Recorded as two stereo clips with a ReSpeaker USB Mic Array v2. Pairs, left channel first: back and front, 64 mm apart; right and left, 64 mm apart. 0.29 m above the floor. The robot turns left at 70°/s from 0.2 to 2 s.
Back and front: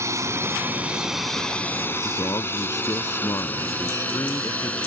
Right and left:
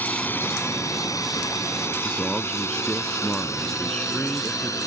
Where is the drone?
30° right; by 4.9 s 110° right.